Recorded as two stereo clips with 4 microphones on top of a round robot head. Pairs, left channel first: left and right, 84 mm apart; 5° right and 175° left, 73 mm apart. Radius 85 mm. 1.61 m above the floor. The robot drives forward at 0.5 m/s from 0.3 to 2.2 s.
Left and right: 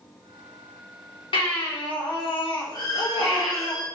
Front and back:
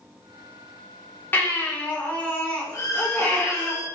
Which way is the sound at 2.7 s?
40° left.